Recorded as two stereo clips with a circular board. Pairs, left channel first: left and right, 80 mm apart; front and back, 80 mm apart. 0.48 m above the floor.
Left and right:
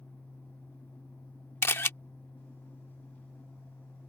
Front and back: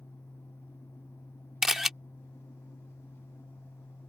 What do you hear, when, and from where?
1.6 s a camera shutter: 100° left